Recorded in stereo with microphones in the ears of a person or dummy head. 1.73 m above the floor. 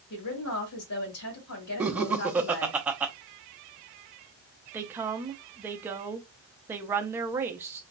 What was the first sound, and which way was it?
A woman speaking, 80° left.